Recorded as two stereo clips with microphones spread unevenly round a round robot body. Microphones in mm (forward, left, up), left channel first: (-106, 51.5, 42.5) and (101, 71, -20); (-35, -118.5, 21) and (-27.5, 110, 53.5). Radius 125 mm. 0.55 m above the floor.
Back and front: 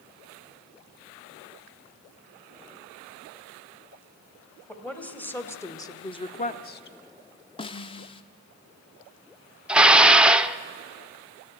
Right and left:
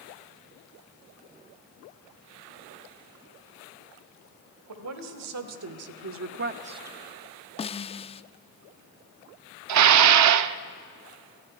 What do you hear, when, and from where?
4.7 s a woman speaking: 95° left, 3 m; by 7.0 s 170° right, 0.8 m
7.6 s a snare drum: 95° right, 0.6 m
9.7 s dishes clattering: 80° left, 0.7 m